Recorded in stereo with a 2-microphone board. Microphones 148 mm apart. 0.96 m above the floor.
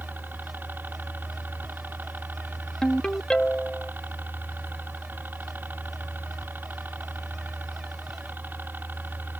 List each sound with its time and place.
0.0 s a helicopter: 15° right (ahead or behind)
2.8 s a ringtone: 5° left (ahead or behind)